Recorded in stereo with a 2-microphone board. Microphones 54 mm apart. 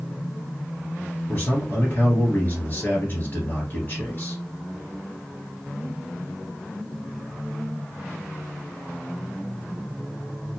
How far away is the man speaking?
About 1.6 m.